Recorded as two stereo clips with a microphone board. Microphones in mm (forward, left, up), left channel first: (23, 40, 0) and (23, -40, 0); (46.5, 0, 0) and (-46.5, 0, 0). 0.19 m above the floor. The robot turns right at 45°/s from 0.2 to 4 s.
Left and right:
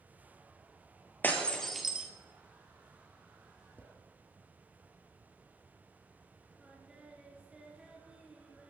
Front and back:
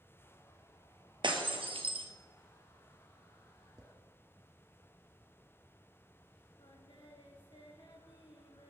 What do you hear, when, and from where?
1.2 s breaking glass: 155° left, 1.8 m; by 2.1 s 170° right, 1.8 m
3.8 s a drawer: 150° left, 1.0 m; by 3.9 s 155° left, 1.0 m
6.6 s singing: 15° right, 2 m